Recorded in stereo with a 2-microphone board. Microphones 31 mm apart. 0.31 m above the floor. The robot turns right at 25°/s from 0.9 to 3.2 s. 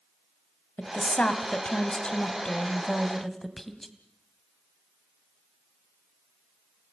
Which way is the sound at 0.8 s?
115° left.